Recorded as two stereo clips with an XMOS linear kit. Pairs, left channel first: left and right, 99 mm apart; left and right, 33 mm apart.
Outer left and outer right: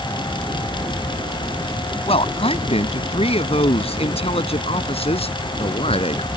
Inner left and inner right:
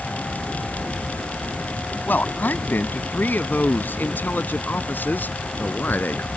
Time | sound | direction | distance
2.1 | a man speaking | 80° left | ?